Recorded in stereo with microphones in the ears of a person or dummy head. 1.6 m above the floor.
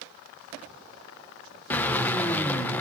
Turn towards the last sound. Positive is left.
turn(degrees=10)  # may be behind; listen again after turning